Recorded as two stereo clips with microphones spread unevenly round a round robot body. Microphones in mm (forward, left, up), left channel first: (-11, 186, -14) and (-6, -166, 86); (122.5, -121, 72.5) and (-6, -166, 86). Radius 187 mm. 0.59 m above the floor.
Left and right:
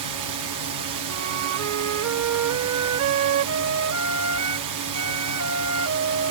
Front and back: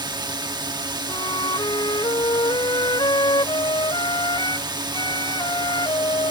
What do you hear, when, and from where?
0.0 s a drone: 115° right
1.1 s a flute: 40° right